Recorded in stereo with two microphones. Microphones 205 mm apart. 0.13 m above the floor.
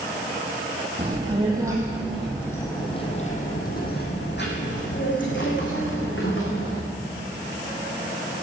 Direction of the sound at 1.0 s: 30° right (ahead or behind).